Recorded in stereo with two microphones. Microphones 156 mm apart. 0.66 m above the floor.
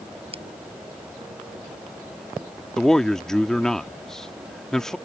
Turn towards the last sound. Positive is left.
turn(degrees=5)  # may be behind; listen again after turning